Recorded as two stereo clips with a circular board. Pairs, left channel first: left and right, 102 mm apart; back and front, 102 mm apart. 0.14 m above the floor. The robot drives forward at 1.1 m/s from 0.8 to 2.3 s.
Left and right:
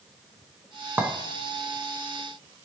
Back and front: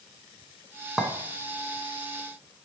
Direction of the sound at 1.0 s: 75° right.